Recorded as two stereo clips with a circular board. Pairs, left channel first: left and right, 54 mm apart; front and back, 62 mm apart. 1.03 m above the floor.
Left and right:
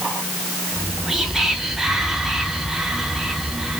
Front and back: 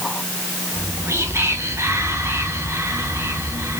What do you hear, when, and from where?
0.7 s whispering: 170° right, 0.5 m